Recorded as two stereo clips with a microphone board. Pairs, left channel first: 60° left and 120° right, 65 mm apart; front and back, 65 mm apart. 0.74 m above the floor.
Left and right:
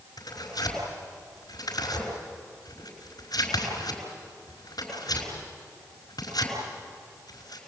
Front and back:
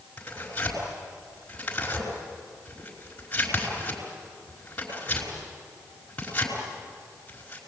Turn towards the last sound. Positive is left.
turn(degrees=70)